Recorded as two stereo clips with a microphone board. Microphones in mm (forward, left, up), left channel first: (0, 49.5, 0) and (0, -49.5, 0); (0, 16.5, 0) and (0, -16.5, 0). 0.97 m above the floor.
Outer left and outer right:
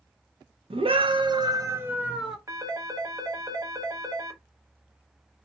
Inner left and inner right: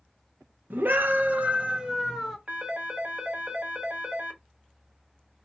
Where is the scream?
65° right (ahead or behind), 0.8 m; by 2.4 s centre (ahead or behind), 0.7 m.